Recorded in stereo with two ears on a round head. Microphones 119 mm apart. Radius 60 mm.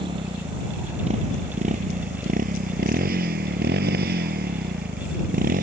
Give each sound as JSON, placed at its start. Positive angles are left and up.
{"t": 0.0, "sound": "a motorcycle", "side_deg": -35}